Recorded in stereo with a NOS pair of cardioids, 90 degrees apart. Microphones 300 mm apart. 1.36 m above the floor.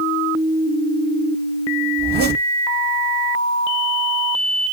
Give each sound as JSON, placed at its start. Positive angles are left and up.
{"t": 2.0, "sound": "a zipper", "azimuth_deg": -35, "distance_m": 1.7}